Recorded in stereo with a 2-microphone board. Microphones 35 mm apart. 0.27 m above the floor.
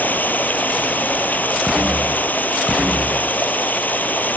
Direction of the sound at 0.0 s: 55° left (ahead or behind).